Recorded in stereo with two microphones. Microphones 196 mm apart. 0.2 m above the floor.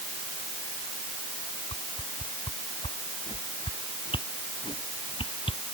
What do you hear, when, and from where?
1.7 s a whoosh: 25° left (ahead or behind)